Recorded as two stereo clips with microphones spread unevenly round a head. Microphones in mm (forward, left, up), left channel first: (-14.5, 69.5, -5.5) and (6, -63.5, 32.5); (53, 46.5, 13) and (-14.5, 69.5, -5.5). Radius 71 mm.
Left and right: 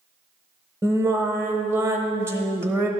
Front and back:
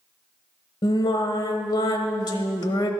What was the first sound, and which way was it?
Singing, straight ahead.